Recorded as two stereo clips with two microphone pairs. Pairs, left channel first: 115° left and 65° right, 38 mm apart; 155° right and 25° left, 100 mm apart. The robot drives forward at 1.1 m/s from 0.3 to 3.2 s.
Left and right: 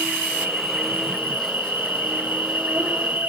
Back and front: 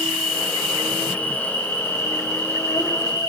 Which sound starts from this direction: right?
An insect, at 0.0 s.